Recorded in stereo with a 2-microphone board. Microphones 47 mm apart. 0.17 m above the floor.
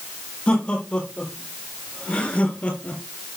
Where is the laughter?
25° left (ahead or behind), 7 m; by 3.0 s 35° left (ahead or behind), 3.5 m.